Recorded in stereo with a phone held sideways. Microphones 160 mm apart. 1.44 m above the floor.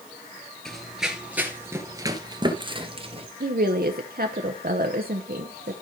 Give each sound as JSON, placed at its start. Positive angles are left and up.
{"t": 0.7, "sound": "running footsteps", "side_deg": 5, "distance_m": 1.6}
{"t": 3.4, "sound": "a woman speaking", "side_deg": -70, "distance_m": 0.9}